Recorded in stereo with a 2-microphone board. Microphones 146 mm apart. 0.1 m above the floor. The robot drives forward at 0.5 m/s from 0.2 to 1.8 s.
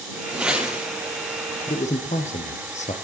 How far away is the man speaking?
About 1.8 m.